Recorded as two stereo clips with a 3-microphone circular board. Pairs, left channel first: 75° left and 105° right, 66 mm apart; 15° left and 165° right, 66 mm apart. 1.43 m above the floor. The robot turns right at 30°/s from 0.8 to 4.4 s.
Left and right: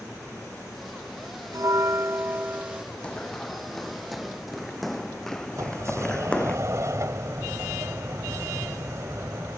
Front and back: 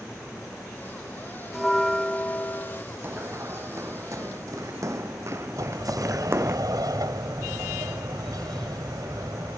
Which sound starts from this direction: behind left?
Running footsteps, at 3.0 s.